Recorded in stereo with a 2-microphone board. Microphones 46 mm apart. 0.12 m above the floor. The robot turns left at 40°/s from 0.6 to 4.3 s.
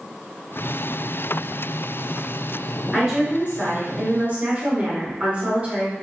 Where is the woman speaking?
20° right, 1.5 m; by 5.9 s 75° right, 1.5 m.